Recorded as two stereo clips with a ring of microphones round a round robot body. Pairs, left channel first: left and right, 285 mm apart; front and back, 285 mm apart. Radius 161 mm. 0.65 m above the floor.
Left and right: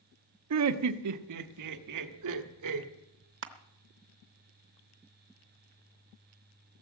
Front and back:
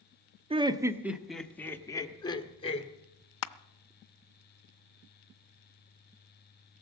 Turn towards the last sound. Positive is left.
turn(degrees=-35)